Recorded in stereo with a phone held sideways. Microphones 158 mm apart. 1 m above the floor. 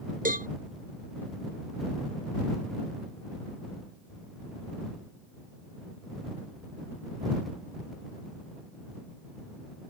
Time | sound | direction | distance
0.2 | a cowbell | 65° right (ahead or behind) | ?